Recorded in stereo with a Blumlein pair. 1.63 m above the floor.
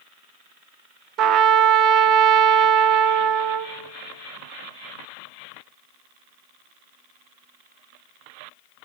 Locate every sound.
1.2 s a trumpet: 35° right, 0.9 m